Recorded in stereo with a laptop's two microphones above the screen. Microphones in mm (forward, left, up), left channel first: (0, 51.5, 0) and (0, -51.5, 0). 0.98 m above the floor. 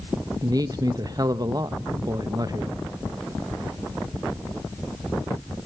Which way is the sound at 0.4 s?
40° right (ahead or behind).